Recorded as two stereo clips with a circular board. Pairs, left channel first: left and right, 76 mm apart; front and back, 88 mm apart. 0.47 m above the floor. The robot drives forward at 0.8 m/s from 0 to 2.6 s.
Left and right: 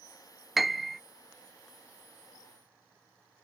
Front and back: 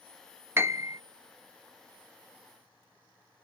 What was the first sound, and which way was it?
A piano, 175° right.